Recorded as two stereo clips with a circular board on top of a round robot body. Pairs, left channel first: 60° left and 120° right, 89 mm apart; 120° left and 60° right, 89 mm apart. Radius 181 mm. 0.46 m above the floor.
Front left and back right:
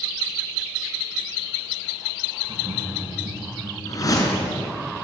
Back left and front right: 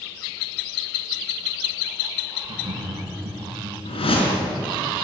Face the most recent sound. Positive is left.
turn(degrees=110)